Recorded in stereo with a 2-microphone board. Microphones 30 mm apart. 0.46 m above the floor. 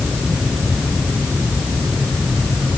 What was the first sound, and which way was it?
Only background noise.